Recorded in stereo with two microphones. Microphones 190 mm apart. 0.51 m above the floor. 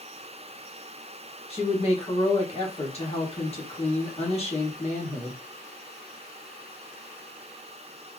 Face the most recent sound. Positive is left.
turn(degrees=35)  # may be behind; listen again after turning